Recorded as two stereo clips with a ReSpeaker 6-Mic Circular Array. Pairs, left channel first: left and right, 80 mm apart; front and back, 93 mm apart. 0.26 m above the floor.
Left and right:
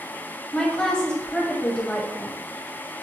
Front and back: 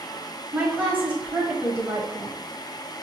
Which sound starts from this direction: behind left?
A woman speaking, at 0.5 s.